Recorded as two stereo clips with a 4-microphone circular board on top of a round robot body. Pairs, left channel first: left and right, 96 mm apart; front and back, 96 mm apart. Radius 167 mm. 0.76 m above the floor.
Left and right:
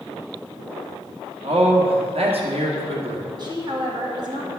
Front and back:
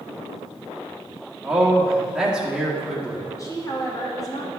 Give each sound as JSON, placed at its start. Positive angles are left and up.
{"t": 1.4, "sound": "a man speaking", "azimuth_deg": -100, "distance_m": 1.7}
{"t": 3.4, "sound": "a woman speaking", "azimuth_deg": -50, "distance_m": 2.0}